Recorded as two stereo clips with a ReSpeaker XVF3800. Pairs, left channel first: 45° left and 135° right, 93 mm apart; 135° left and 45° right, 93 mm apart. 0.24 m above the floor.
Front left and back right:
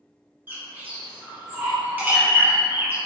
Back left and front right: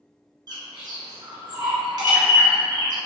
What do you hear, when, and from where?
0.5 s a bird: 70° right, 1.3 m